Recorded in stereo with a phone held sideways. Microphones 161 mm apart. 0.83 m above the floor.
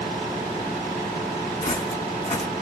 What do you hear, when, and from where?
1.6 s footsteps: 30° left (ahead or behind), 1.6 m